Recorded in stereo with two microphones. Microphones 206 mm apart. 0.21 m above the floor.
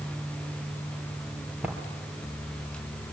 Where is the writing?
5° right (ahead or behind), 3.5 m.